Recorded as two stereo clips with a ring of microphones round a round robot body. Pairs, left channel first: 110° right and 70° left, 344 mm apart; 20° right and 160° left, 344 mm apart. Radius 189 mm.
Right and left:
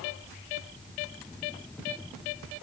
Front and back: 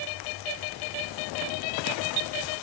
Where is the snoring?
I don't hear snoring.